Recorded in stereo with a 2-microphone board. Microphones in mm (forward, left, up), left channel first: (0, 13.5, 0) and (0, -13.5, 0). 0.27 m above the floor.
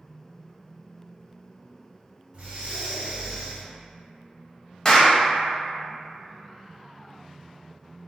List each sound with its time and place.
2.3 s breathing: 40° right (ahead or behind), 0.9 m
4.8 s a clap: 25° left (ahead or behind), 0.7 m